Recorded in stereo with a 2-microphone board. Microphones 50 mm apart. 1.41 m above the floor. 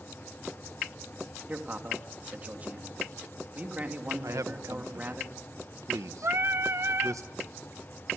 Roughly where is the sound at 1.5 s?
Right.